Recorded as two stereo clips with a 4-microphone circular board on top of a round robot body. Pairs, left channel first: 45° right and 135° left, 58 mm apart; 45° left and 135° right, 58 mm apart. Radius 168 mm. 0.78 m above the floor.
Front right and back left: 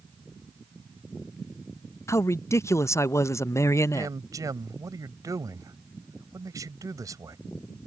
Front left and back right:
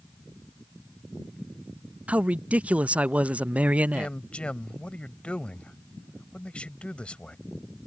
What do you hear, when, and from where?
2.1 s a man speaking: 70° right
3.9 s a man speaking: 120° left